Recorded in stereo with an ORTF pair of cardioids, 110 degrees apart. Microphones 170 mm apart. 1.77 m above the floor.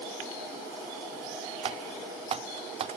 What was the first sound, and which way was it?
Typing on a keyboard, 35° right.